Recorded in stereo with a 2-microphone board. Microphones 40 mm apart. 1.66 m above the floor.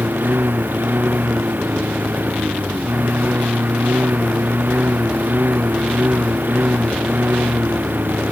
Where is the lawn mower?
60° right (ahead or behind); by 8.3 s 55° right (ahead or behind).